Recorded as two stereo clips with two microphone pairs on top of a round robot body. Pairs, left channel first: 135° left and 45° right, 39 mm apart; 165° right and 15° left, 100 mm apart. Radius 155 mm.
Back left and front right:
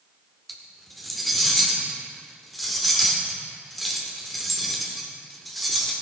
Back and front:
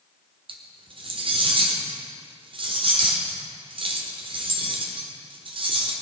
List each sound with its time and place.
0.5 s cutlery clinking: 45° left, 1.5 m